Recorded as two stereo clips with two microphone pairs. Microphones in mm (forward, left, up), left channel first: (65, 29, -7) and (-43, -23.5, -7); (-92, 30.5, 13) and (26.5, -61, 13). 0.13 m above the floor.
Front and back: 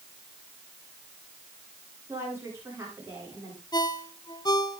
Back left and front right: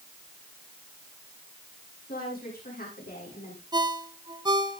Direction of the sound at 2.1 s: 140° left.